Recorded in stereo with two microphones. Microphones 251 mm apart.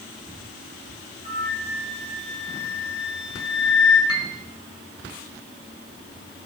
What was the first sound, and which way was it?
A flute, 40° right (ahead or behind).